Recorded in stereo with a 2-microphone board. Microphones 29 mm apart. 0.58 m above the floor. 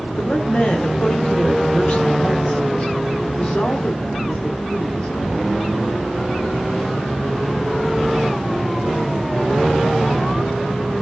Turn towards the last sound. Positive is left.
turn(degrees=45)  # may be behind; listen again after turning